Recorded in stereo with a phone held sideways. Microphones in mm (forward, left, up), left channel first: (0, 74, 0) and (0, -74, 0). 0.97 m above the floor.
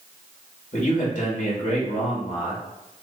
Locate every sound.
0.7 s a man speaking: 60° left (ahead or behind), 2 m